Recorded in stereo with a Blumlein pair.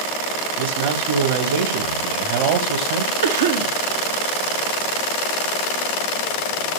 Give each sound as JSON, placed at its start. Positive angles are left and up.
{"t": 0.6, "sound": "a man speaking", "azimuth_deg": -55, "distance_m": 3.0}
{"t": 3.2, "sound": "a cough", "azimuth_deg": -60, "distance_m": 1.8}